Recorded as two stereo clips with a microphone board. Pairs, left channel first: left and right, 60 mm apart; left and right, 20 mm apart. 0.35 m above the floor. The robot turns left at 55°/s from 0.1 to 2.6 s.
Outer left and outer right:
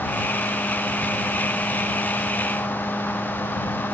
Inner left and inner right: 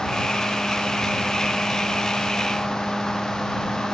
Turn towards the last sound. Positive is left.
No sound to turn to.